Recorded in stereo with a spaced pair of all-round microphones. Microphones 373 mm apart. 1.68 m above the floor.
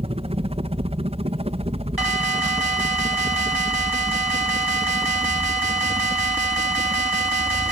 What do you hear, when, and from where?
0.0 s a helicopter: 15° right (ahead or behind)
2.0 s an alarm: 75° right (ahead or behind)